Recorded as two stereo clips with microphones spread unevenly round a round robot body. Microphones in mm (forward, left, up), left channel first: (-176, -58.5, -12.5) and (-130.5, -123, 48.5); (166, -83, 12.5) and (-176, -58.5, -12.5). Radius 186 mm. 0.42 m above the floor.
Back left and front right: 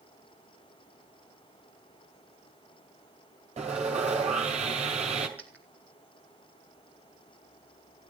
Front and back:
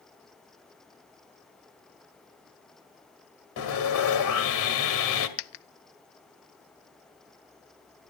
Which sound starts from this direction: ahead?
A dropped coin, at 5.4 s.